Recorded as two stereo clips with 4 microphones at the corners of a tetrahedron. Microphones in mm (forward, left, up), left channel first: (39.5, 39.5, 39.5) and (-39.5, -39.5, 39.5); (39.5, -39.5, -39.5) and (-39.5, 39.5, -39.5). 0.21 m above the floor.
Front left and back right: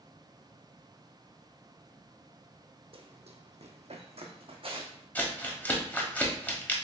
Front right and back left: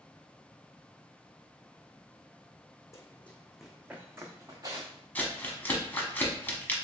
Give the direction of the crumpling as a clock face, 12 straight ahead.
12 o'clock.